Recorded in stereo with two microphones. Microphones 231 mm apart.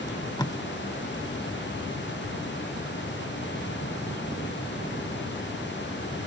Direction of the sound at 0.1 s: 15° left (ahead or behind).